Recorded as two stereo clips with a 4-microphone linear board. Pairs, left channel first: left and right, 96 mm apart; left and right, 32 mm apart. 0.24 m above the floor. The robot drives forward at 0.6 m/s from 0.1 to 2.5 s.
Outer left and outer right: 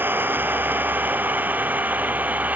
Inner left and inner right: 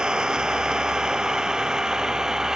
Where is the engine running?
20° right (ahead or behind); by 2.6 s 15° right (ahead or behind).